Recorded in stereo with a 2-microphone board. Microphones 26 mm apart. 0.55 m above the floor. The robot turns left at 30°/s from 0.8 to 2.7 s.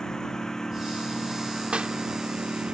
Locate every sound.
0.0 s a lawn mower: 25° left (ahead or behind); by 2.8 s 40° right (ahead or behind)
1.7 s a clap: 50° right (ahead or behind); by 2.0 s 45° right (ahead or behind)